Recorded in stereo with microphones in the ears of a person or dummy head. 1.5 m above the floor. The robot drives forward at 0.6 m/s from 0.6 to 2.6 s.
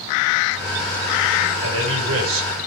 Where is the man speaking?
80° right, 6 m; by 2.5 s 85° right, 6 m.